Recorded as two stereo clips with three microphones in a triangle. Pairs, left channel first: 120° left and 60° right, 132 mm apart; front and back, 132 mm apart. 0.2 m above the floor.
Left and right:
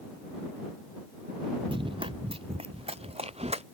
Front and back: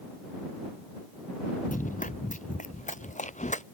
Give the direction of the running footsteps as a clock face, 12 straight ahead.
12 o'clock.